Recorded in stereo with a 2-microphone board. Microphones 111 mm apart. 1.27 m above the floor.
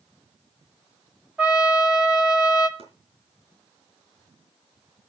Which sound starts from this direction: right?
Chopping, at 2.8 s.